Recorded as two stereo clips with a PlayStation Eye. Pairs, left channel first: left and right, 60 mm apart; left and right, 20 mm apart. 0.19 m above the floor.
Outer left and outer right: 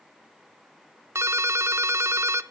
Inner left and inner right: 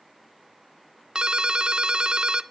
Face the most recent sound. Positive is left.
turn(degrees=-45)  # may be behind; listen again after turning